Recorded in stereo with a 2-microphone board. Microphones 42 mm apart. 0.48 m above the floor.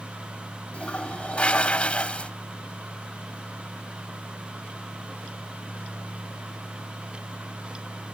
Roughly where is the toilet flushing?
Left.